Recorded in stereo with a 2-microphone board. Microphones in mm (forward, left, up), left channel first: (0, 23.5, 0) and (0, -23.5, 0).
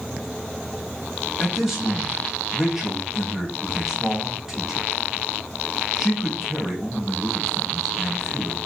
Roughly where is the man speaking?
Centre.